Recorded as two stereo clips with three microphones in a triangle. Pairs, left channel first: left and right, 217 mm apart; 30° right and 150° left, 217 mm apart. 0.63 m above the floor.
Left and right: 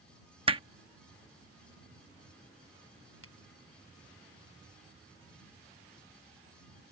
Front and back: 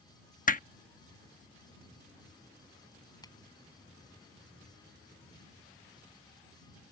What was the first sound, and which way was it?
Hammering, 40° right.